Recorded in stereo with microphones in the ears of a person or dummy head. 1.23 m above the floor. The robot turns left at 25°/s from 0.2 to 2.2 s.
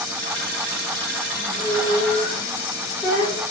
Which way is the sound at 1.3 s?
10° right (ahead or behind).